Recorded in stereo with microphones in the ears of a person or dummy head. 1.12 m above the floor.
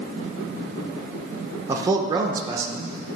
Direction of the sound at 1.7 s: 25° right (ahead or behind).